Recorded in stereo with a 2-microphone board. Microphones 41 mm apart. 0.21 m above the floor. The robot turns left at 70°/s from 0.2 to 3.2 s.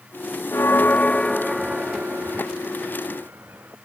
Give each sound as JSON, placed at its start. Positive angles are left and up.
{"t": 0.5, "sound": "a bell", "azimuth_deg": 70}